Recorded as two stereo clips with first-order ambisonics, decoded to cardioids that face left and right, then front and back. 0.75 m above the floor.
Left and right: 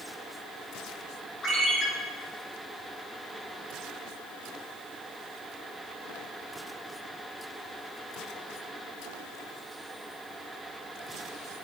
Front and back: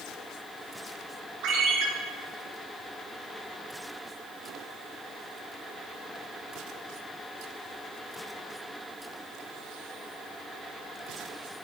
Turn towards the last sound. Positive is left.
turn(degrees=155)